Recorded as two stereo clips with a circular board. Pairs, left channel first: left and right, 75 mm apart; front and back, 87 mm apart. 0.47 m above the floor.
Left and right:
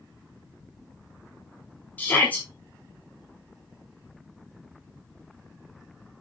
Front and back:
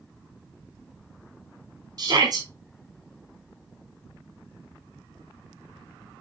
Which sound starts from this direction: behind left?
A shout, at 2.0 s.